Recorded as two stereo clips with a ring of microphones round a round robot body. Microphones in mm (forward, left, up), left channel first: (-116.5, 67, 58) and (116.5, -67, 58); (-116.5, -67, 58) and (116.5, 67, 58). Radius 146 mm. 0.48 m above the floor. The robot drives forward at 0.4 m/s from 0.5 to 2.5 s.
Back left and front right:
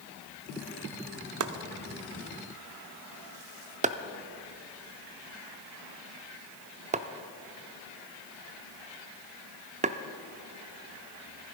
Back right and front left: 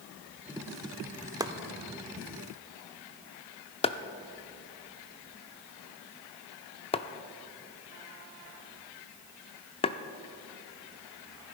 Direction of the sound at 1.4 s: 45° right.